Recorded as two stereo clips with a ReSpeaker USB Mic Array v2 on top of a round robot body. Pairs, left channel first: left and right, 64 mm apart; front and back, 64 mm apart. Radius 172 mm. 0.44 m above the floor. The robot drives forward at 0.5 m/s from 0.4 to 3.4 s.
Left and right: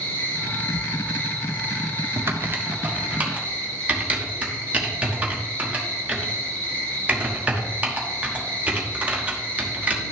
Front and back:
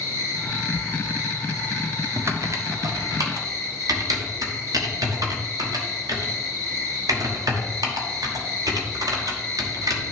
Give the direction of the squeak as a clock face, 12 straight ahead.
No squeak in this recording.